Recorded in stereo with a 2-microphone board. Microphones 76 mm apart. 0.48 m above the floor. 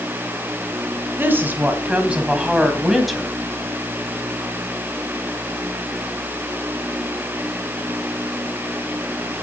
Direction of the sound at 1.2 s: 30° right (ahead or behind).